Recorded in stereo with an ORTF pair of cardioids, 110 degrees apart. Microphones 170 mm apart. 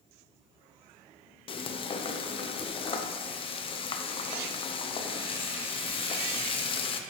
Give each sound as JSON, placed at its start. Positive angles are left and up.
{"t": 1.5, "sound": "frying", "azimuth_deg": 30, "distance_m": 0.8}